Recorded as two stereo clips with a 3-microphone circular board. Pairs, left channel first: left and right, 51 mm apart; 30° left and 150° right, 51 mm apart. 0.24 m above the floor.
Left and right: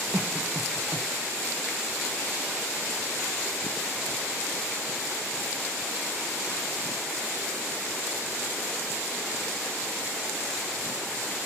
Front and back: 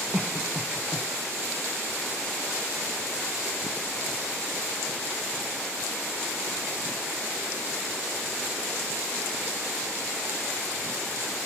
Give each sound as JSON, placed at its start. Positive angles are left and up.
{"t": 0.1, "sound": "a cough", "azimuth_deg": -80, "distance_m": 1.7}